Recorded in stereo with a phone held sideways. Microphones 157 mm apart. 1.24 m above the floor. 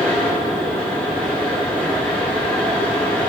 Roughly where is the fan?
Centre.